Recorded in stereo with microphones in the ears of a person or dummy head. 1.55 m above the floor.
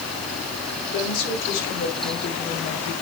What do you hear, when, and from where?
0.9 s a woman speaking: 80° left, 4.5 m; by 2.9 s 65° left (ahead or behind), 5 m